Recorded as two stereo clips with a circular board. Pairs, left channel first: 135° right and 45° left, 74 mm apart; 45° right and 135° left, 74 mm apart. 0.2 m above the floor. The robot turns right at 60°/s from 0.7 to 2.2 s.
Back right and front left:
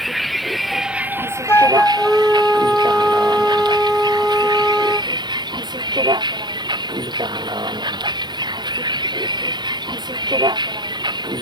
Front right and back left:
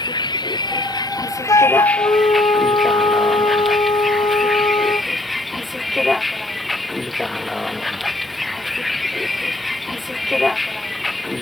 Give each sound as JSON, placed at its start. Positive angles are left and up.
{"t": 0.0, "sound": "a vehicle", "azimuth_deg": -45}
{"t": 1.5, "sound": "a flute", "azimuth_deg": -80}